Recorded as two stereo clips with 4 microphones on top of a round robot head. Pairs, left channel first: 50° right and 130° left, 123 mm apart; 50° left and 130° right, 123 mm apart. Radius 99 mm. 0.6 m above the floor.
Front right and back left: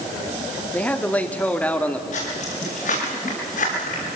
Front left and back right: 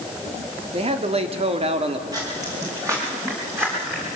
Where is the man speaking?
125° right, 1.8 m.